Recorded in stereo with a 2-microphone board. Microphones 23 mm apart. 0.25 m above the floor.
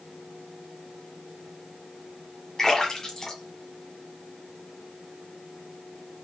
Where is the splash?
20° left (ahead or behind), 1.6 m.